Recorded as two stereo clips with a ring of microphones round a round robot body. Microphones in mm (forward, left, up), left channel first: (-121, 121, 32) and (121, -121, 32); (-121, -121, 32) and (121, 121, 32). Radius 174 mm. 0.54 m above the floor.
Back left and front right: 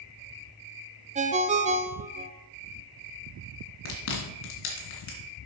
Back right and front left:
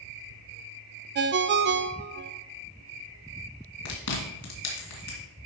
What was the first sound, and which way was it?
A ringtone, 10° left.